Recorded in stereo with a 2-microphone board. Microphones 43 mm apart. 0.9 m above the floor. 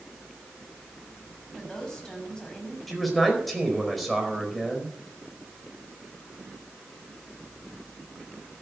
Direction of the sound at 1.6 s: 15° left (ahead or behind).